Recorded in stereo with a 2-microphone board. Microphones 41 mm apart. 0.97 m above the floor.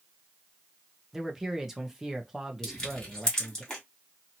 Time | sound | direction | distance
1.1 | a man speaking | 10° right (ahead or behind) | 0.7 m
2.6 | crushing | 20° left (ahead or behind) | 1.7 m